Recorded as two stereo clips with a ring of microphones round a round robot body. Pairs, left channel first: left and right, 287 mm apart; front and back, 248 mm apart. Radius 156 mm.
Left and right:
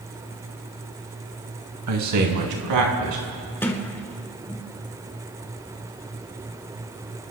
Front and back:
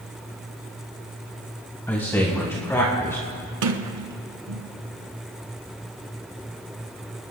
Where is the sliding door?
175° left, 1.2 m.